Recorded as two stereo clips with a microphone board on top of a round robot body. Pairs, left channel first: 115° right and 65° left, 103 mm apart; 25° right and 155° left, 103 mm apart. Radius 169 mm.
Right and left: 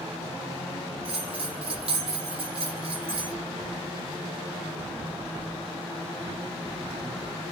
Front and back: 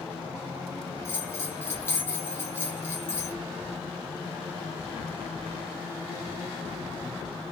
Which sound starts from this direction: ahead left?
A bell, at 1.1 s.